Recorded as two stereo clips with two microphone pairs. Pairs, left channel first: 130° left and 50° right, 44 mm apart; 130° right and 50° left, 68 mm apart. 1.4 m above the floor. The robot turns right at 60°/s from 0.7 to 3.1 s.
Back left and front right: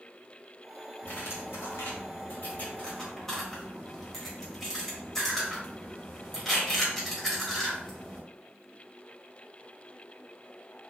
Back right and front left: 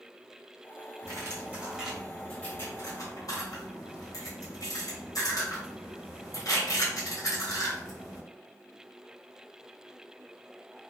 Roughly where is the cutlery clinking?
Left.